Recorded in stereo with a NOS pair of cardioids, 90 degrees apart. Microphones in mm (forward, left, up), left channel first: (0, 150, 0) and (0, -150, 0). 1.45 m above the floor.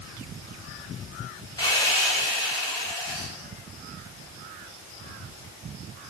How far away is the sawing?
About 0.9 m.